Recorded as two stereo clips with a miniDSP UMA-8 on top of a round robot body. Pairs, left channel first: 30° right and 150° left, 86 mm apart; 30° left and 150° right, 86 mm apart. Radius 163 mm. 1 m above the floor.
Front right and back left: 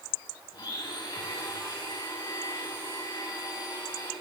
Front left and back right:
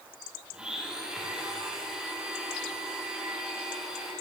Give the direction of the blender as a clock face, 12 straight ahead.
2 o'clock.